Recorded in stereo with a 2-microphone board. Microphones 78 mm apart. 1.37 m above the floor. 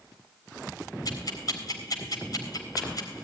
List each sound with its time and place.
1.1 s ticking: 50° left (ahead or behind), 3.5 m